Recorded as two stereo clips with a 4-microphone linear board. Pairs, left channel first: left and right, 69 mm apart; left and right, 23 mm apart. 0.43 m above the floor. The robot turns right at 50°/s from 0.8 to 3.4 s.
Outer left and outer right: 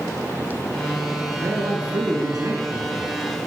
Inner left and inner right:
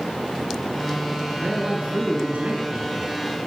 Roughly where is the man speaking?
Behind right.